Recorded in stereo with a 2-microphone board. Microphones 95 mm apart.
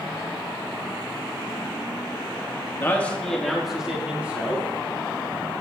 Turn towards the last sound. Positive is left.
turn(degrees=-25)  # may be behind; listen again after turning